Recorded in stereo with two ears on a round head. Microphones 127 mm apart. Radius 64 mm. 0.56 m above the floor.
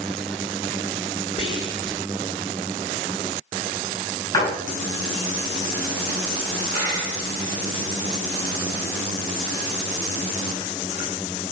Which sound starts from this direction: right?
A dropped coin, at 6.7 s.